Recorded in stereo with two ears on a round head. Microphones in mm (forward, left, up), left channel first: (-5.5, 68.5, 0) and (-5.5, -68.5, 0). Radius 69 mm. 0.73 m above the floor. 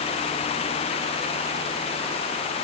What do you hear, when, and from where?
Only background noise.